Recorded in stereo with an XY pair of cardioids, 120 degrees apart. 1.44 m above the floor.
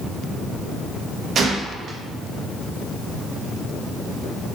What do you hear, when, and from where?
1.4 s a gunshot: 50° right, 0.6 m